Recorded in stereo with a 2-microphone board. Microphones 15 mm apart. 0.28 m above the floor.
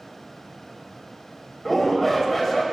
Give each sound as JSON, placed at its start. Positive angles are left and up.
{"t": 1.6, "sound": "a shout", "side_deg": 10, "distance_m": 1.1}